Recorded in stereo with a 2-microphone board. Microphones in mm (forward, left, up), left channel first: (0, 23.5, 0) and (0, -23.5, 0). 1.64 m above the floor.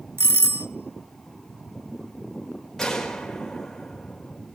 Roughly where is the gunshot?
Centre.